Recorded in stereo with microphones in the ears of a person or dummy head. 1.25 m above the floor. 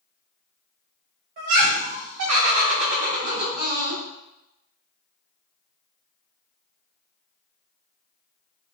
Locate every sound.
1.4 s laughter: 40° right (ahead or behind), 0.7 m; by 4.0 s 25° right (ahead or behind), 1.3 m